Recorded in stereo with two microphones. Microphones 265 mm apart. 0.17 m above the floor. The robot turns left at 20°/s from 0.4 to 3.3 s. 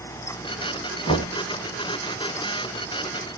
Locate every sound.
1.1 s knocking: 20° left (ahead or behind), 0.7 m